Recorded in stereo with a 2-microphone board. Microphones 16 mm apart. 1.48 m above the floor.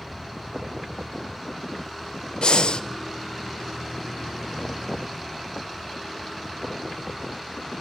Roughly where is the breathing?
Left.